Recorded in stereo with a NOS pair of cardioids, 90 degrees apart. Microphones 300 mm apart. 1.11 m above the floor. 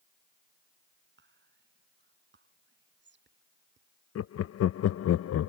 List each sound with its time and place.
1.2 s whispering: 35° right
4.2 s laughter: 55° left